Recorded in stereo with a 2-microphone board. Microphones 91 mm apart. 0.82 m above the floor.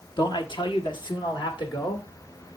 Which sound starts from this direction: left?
A man speaking, at 0.2 s.